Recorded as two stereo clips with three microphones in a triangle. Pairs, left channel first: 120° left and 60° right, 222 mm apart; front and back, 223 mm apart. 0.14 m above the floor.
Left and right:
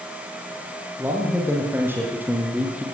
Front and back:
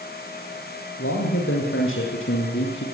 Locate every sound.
1.0 s a man speaking: 20° left, 6.5 m; by 2.9 s 25° left, 5 m